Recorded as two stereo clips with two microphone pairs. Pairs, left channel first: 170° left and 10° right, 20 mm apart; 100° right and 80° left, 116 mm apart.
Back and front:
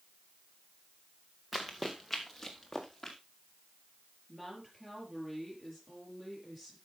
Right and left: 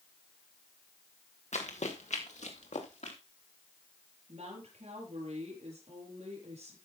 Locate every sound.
1.5 s running footsteps: 90° right, 2 m; by 3.2 s 110° right, 3.5 m
4.3 s a woman speaking: 65° left, 6 m